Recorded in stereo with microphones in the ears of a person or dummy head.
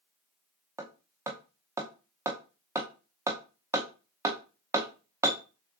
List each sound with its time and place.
0.8 s hammering: 10° right (ahead or behind), 0.6 m